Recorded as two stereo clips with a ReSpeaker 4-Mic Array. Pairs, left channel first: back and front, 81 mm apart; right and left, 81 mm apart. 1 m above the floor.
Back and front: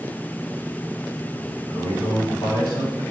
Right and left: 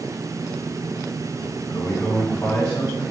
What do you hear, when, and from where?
1.7 s a man speaking: 170° right, 2 m